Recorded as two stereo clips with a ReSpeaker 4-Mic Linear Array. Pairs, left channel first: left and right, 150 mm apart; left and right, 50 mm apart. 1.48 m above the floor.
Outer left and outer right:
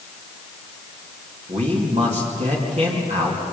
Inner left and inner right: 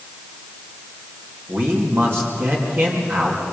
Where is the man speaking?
45° right (ahead or behind), 2.5 m.